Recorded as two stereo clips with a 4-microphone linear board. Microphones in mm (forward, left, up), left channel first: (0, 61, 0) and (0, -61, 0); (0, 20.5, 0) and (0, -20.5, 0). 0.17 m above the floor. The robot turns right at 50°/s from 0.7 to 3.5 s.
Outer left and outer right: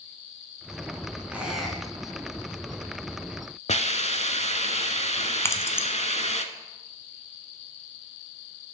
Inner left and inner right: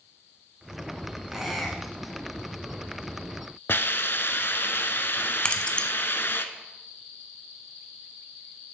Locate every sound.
1.3 s a squeak: 15° right (ahead or behind), 1.4 m; by 2.2 s 20° left (ahead or behind), 1.4 m
3.7 s a hiss: 65° left (ahead or behind), 0.5 m
5.5 s keys jangling: 20° left (ahead or behind), 0.7 m